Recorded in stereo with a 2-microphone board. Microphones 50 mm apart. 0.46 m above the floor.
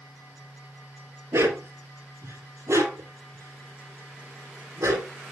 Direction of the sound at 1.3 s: 80° right.